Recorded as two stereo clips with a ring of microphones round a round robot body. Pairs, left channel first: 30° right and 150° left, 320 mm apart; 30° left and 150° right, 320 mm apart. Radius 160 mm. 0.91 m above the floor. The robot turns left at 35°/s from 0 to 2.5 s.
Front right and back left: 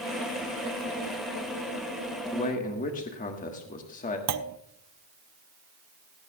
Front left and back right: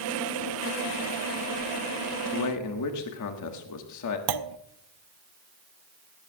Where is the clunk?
170° right, 0.6 m.